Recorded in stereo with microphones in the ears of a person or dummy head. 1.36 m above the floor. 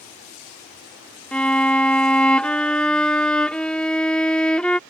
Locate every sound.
1.3 s a violin: 5° left (ahead or behind)